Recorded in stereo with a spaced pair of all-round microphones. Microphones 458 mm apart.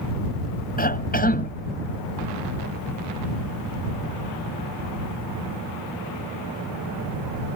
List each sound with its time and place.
0.8 s a cough: 20° left (ahead or behind)